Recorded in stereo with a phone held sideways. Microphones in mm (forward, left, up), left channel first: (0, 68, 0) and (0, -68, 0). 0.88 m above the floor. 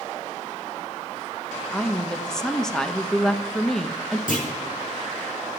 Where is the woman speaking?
5° left (ahead or behind), 0.8 m.